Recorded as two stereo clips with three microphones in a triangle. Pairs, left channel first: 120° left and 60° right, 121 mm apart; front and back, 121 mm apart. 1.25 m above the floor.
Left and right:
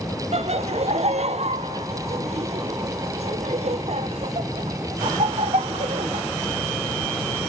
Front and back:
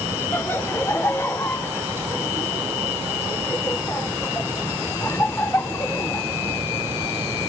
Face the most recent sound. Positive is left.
turn(degrees=-65)